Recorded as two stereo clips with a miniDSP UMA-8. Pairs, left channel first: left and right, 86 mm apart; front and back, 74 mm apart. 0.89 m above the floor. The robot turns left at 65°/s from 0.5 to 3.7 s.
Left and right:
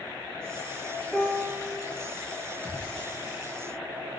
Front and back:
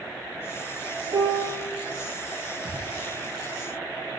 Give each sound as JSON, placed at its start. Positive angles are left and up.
{"t": 1.1, "sound": "a piano", "azimuth_deg": 175, "distance_m": 3.5}
{"t": 2.6, "sound": "a gunshot", "azimuth_deg": -155, "distance_m": 4.5}